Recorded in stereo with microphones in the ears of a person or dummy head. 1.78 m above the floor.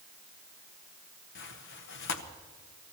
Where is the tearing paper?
60° left (ahead or behind), 1.0 m.